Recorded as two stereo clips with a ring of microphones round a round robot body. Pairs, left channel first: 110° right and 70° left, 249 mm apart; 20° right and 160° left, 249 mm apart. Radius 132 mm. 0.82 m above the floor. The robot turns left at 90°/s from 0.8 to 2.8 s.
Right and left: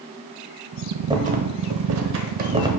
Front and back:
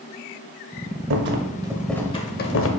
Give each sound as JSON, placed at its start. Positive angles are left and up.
{"t": 1.1, "sound": "a rattle", "azimuth_deg": 135, "distance_m": 0.7}